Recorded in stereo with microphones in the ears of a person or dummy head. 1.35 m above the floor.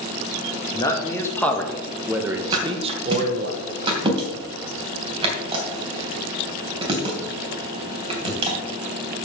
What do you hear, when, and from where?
0.7 s a man speaking: 20° left (ahead or behind), 2 m; by 3.5 s 55° right (ahead or behind), 1.2 m
2.5 s a thud: 25° right (ahead or behind), 3 m